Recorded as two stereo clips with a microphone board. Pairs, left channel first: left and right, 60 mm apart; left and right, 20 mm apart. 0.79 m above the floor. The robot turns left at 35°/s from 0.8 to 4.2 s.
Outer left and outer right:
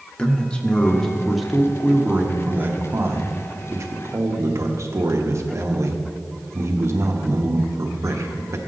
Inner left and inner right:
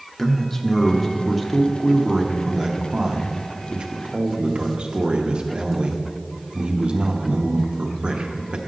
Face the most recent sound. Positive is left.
turn(degrees=-100)